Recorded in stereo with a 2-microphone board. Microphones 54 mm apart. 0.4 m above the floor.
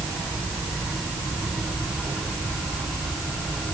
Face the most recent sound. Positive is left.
No sound to turn to.